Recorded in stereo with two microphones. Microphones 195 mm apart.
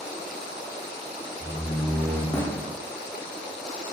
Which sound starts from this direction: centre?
A door slam, at 1.4 s.